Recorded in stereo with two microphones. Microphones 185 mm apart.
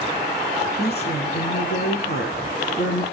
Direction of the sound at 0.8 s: 65° left (ahead or behind).